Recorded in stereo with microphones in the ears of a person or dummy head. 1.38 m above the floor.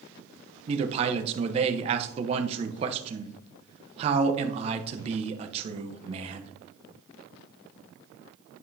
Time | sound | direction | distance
0.7 | a man speaking | 25° right (ahead or behind) | 0.8 m